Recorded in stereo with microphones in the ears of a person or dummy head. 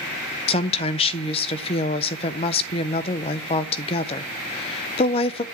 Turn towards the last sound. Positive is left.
turn(degrees=30)  # may be behind; listen again after turning